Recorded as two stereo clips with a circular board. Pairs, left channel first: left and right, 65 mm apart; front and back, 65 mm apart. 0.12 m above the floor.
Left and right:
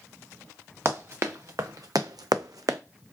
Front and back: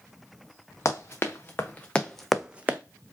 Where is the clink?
I don't hear a clink.